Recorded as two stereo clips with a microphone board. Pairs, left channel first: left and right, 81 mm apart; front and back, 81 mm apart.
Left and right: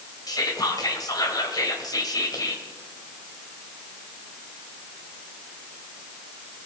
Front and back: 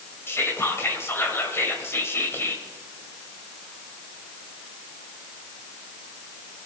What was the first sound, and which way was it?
Whispering, 55° left.